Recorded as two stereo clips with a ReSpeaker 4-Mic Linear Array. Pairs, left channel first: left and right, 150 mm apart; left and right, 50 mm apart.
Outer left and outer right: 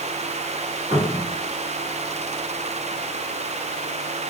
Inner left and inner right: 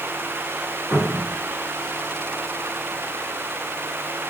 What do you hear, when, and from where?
0.9 s a cupboard door: 25° right (ahead or behind), 1.4 m